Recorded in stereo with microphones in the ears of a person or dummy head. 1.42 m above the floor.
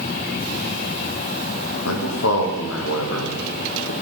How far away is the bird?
No bird in this recording.